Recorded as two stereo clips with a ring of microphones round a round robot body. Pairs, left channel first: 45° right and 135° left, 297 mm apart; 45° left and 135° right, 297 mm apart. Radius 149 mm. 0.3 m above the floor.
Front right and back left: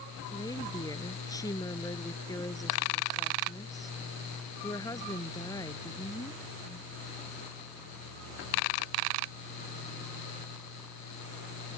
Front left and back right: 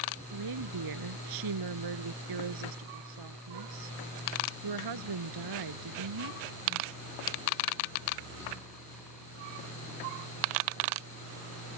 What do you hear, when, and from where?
0.3 s a woman speaking: 125° right